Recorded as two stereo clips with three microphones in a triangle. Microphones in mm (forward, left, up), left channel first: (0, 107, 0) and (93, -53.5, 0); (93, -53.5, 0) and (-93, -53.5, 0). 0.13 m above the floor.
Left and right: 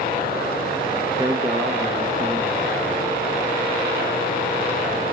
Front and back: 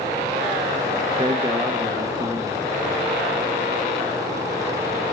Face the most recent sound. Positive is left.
turn(degrees=-125)